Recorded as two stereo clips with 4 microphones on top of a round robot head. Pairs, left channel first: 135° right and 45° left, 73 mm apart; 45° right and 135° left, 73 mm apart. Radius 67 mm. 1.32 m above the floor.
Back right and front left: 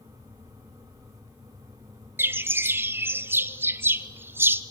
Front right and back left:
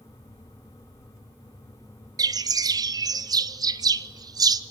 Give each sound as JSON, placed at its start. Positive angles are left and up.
{"t": 2.2, "sound": "a bird", "azimuth_deg": 105, "distance_m": 0.9}